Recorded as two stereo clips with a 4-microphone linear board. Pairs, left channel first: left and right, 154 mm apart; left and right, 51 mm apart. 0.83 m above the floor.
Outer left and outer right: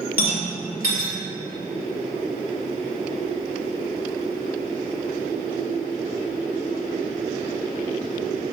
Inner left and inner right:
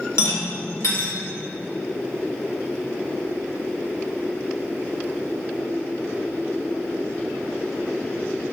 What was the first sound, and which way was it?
A rattle, 75° left (ahead or behind).